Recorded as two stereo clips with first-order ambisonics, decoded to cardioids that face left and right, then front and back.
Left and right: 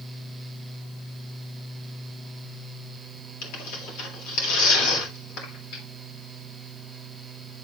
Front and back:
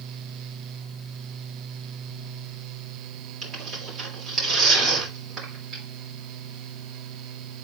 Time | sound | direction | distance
3.4 | tearing paper | 120° left | 3 m